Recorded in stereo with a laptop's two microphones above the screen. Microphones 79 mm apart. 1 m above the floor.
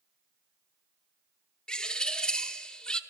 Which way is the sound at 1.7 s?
10° left (ahead or behind).